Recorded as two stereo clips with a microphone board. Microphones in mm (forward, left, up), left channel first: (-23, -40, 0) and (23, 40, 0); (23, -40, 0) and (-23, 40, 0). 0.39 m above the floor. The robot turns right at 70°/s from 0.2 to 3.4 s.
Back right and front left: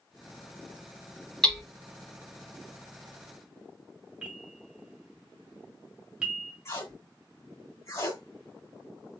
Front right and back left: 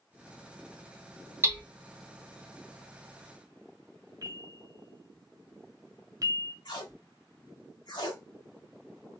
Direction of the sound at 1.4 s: 160° left.